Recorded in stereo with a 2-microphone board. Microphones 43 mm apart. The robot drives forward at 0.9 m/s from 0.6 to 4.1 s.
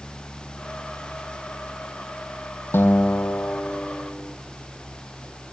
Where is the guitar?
70° left (ahead or behind), 0.6 m; by 4.3 s 25° left (ahead or behind), 1.5 m.